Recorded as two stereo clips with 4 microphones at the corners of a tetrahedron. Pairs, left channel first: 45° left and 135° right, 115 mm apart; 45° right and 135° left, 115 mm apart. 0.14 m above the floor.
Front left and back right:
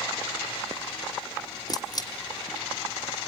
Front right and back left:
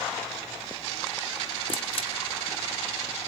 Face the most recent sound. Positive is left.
turn(degrees=-10)